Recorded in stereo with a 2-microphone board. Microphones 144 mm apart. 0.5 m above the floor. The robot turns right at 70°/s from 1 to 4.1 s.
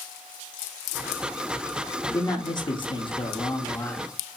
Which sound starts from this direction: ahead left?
A man speaking, at 2.1 s.